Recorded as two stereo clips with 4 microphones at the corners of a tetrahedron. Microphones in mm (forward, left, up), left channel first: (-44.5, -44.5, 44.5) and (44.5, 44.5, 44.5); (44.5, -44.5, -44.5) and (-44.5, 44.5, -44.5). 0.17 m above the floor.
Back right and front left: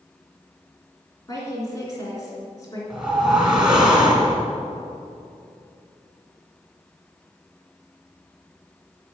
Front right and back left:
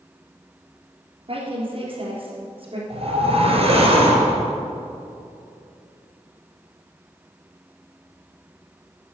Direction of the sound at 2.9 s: 130° left.